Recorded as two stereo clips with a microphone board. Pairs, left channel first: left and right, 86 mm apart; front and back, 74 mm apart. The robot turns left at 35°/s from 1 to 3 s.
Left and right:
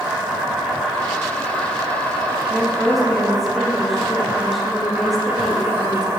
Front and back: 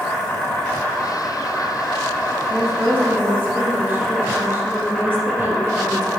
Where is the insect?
20° right, 1.3 m; by 6.2 s 90° right, 1.3 m.